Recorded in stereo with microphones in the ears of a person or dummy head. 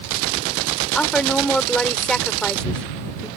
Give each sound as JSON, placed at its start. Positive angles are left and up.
{"t": 0.9, "sound": "a woman speaking", "side_deg": 0}